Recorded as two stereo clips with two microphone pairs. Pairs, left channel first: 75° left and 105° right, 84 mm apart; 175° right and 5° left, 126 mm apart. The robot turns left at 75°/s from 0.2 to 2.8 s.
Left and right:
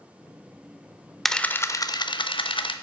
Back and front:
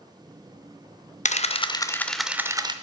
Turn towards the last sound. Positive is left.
turn(degrees=50)